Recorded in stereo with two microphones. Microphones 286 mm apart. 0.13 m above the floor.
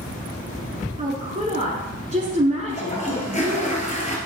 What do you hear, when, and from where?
1.0 s a woman speaking: 25° right (ahead or behind), 1.3 m
2.7 s a toilet flushing: 25° left (ahead or behind), 1.6 m